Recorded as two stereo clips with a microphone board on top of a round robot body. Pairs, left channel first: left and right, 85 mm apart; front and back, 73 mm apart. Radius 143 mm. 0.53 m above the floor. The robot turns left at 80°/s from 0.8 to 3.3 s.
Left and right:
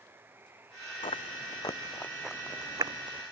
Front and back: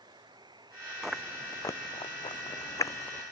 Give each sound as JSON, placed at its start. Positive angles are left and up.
{"t": 0.0, "sound": "running water", "azimuth_deg": -155}
{"t": 1.0, "sound": "chewing", "azimuth_deg": 95}